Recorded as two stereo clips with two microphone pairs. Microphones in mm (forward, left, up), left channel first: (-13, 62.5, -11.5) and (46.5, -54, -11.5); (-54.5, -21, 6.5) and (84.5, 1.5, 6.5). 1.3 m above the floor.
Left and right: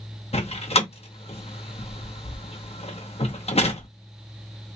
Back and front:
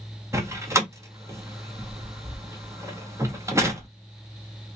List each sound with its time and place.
0.3 s a door slam: 80° left, 0.9 m